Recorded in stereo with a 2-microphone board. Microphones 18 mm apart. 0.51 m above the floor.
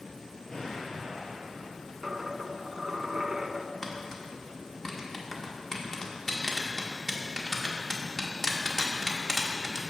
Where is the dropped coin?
35° right (ahead or behind), 0.5 m.